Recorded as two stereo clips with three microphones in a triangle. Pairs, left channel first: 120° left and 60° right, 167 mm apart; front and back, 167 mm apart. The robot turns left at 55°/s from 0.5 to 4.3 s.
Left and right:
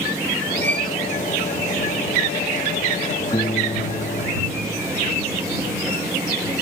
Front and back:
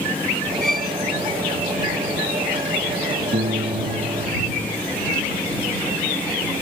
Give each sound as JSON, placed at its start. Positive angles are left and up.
{"t": 0.6, "sound": "a violin", "azimuth_deg": -15}
{"t": 3.3, "sound": "a piano", "azimuth_deg": 180}